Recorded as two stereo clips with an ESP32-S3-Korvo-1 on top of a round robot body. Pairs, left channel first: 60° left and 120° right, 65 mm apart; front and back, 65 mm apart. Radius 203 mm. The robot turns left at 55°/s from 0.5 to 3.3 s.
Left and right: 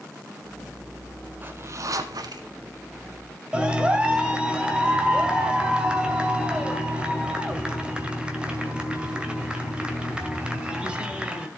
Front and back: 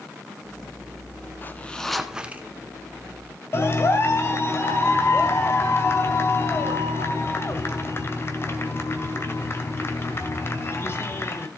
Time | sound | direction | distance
1.4 | a zipper | 60° right | 1.1 m
3.5 | a clap | 50° right | 2.5 m